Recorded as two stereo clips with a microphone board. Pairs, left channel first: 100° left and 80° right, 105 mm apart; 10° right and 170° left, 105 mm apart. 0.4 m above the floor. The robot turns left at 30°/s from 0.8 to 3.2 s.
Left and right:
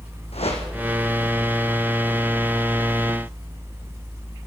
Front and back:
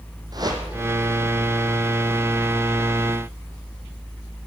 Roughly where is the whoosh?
Behind left.